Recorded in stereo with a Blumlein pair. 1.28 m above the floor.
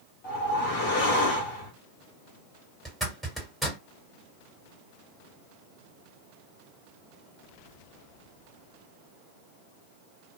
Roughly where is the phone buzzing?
No phone buzzing in this recording.